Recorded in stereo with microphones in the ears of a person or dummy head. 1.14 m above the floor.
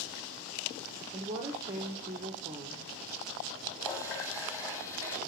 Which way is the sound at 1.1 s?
25° right (ahead or behind).